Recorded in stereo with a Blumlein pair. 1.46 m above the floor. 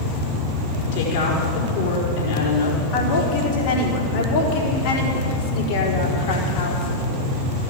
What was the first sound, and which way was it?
A woman speaking, 50° left.